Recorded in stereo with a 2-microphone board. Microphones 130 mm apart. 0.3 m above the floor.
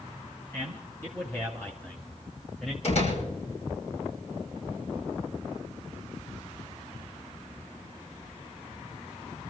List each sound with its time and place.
0.5 s a man speaking: 20° left (ahead or behind), 2.5 m; by 2.7 s centre (ahead or behind), 1.5 m
2.8 s a door slam: 60° left (ahead or behind), 8 m